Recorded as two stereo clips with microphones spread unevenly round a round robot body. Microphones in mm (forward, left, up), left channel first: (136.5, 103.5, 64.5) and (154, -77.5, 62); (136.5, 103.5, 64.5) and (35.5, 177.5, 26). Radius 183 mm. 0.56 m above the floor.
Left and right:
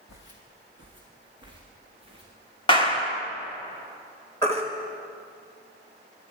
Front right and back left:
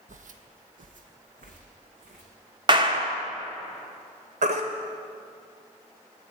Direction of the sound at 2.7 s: 155° left.